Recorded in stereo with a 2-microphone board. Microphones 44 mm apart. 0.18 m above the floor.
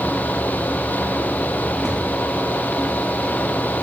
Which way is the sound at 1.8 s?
15° right (ahead or behind).